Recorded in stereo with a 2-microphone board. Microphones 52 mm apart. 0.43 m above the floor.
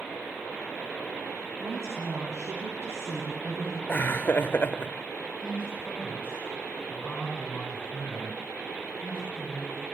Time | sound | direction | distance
1.6 | a woman speaking | 65° right (ahead or behind) | 4.5 m
3.9 | laughter | 40° left (ahead or behind) | 1.0 m
5.4 | a man speaking | 15° left (ahead or behind) | 5 m